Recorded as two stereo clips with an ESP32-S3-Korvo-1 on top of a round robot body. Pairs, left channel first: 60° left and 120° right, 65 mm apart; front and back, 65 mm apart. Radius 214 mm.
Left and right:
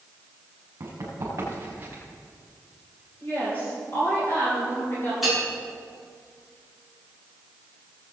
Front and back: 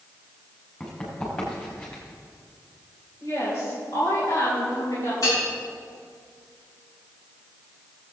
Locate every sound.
0.8 s running footsteps: 75° right, 5 m; by 2.0 s 65° right, 5 m
3.2 s a woman speaking: 10° left, 4 m
5.2 s a bell: 35° right, 5 m